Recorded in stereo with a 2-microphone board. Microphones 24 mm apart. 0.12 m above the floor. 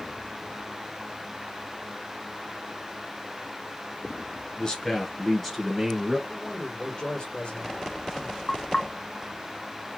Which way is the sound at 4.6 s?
35° left (ahead or behind).